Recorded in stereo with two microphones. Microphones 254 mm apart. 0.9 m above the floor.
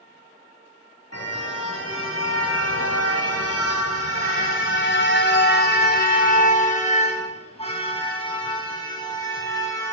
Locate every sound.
1.1 s a car horn: 75° left (ahead or behind), 2.5 m; by 9.9 s 10° left (ahead or behind), 4 m